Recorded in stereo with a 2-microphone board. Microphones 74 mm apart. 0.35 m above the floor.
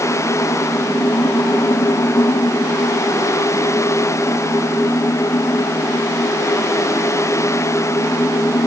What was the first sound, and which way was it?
Only background noise.